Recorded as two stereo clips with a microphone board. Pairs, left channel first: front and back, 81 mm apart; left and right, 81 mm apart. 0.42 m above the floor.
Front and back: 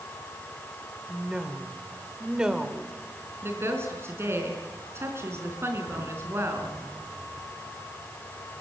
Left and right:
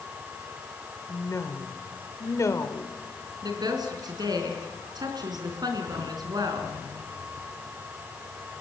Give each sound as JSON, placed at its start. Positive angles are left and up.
{"t": 1.1, "sound": "a woman speaking", "azimuth_deg": 105, "distance_m": 1.6}
{"t": 3.4, "sound": "a woman speaking", "azimuth_deg": -125, "distance_m": 4.0}